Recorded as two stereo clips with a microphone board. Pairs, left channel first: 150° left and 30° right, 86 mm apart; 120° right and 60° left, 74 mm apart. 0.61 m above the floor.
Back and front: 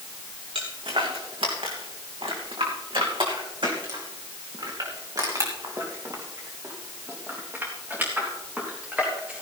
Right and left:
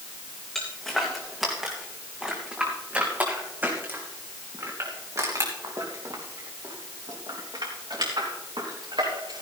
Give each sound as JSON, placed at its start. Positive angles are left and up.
{"t": 0.6, "sound": "footsteps", "azimuth_deg": -35, "distance_m": 3.5}